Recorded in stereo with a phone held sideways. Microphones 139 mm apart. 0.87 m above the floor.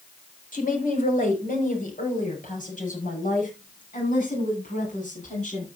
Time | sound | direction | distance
0.5 | a woman speaking | 80° left | 4.5 m